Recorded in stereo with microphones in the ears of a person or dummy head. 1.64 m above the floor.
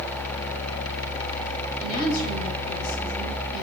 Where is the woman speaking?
50° left (ahead or behind), 4 m.